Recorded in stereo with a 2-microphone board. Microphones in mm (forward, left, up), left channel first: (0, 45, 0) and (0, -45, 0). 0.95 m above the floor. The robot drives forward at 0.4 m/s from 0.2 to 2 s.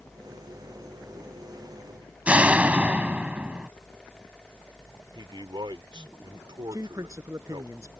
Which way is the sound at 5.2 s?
60° right (ahead or behind).